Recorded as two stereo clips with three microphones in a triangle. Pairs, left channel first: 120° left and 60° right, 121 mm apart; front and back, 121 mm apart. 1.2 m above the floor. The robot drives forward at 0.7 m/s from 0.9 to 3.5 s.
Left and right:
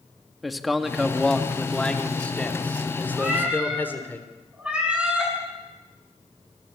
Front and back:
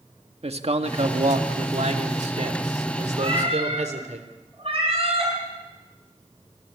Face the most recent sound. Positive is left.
turn(degrees=-140)